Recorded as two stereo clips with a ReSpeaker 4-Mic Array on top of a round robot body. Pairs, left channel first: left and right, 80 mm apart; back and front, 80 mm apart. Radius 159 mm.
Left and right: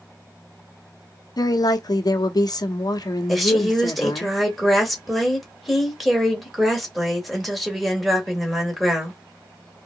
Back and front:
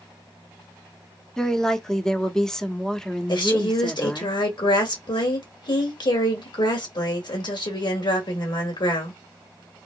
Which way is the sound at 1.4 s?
100° left.